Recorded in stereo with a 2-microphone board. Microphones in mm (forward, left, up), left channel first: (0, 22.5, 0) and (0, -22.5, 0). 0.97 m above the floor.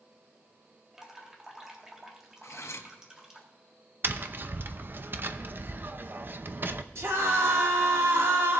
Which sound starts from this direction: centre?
Dripping, at 0.9 s.